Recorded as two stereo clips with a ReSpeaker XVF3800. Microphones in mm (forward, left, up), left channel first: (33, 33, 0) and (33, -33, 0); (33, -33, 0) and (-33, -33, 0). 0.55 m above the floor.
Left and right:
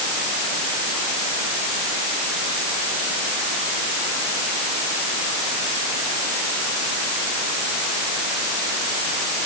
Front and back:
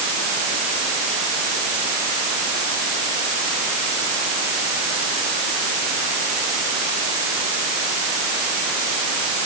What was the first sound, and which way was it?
Only background noise.